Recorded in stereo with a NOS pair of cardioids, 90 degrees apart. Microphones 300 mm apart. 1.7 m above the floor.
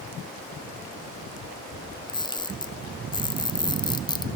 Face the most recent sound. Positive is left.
turn(degrees=15)